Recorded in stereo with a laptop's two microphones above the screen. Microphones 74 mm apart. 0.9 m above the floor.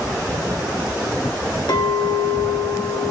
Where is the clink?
80° left, 1.6 m.